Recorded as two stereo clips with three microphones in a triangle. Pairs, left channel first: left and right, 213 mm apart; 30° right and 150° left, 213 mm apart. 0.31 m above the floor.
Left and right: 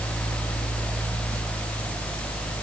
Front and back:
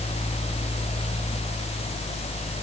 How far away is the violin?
No violin in this recording.